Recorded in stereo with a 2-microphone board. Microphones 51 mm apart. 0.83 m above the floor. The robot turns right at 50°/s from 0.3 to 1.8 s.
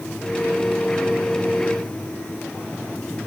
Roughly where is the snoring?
No snoring in this recording.